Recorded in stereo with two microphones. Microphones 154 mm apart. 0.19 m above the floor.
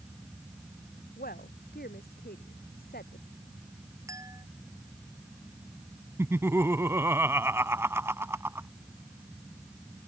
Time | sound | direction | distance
1.2 | a woman speaking | 70° left (ahead or behind) | ?
4.1 | a clink | 20° right (ahead or behind) | ?
6.2 | laughter | 15° right (ahead or behind) | ?